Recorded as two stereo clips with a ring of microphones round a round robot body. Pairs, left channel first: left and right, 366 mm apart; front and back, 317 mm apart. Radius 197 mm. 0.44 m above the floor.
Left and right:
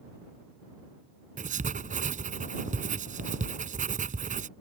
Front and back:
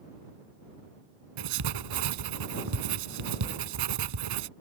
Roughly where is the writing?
Behind.